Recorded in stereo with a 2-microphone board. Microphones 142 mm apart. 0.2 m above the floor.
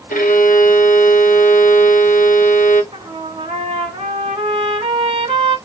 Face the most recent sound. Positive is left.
turn(degrees=-35)  # may be behind; listen again after turning